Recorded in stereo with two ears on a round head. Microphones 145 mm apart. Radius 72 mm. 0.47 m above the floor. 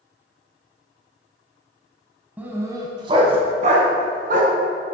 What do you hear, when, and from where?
2.4 s a dog barking: 10° right (ahead or behind), 1.5 m; by 4.5 s 60° right (ahead or behind), 2.5 m